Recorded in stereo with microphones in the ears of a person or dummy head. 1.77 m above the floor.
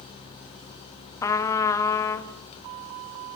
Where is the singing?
I don't hear singing.